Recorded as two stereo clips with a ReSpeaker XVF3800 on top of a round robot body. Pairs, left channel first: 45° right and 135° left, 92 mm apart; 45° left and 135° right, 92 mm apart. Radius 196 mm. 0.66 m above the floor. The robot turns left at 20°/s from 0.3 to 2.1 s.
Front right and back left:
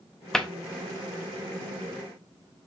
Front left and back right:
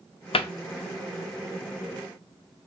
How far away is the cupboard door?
About 0.6 m.